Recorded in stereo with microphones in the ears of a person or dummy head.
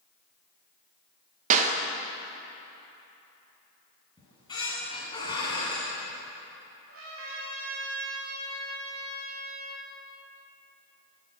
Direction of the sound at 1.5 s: 40° right (ahead or behind).